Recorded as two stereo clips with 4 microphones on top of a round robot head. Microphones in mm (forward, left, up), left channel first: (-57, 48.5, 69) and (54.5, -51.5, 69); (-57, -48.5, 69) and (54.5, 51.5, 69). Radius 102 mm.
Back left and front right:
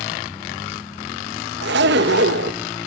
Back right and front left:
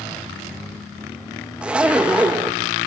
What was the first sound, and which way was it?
A zipper, 40° right.